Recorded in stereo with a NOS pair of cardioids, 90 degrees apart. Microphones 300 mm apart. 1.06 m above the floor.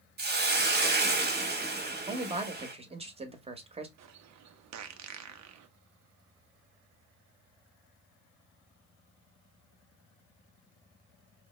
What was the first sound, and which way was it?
A hiss, 35° right.